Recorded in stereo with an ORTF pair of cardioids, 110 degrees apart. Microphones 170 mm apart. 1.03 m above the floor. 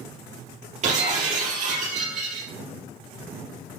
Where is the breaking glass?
50° right, 4 m.